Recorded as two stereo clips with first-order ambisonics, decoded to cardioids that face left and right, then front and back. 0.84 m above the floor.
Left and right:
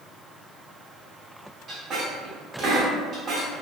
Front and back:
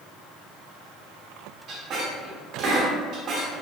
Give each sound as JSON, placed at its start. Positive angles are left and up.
{"t": 1.7, "sound": "a squeak", "azimuth_deg": -140, "distance_m": 0.5}